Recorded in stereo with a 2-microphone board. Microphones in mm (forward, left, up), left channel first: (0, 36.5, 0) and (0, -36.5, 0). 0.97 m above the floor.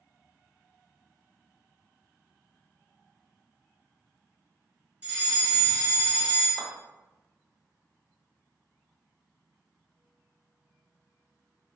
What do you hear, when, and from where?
5.0 s a fire alarm: 20° right (ahead or behind), 1.5 m
6.6 s a clap: centre (ahead or behind), 1.0 m